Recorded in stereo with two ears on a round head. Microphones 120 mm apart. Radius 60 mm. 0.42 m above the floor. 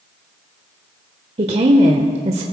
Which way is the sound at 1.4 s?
45° right (ahead or behind).